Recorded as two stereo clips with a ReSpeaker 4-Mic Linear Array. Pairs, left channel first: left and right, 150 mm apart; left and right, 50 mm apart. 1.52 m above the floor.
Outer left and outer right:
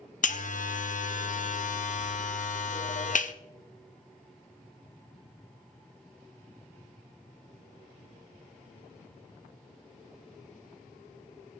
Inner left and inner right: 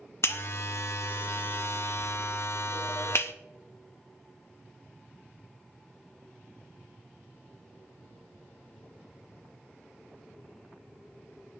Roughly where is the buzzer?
Left.